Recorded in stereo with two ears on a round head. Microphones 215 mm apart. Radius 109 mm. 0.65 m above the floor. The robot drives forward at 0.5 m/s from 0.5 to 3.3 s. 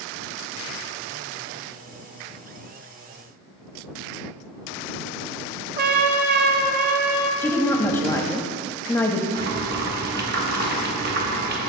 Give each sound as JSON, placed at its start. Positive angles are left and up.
{"t": 5.8, "sound": "a trumpet", "side_deg": -40, "distance_m": 0.6}
{"t": 7.4, "sound": "a woman speaking", "side_deg": 10, "distance_m": 0.6}
{"t": 9.3, "sound": "boiling", "side_deg": -40, "distance_m": 1.1}